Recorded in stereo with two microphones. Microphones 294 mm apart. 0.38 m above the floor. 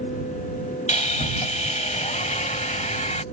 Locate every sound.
0.9 s sawing: 25° left (ahead or behind)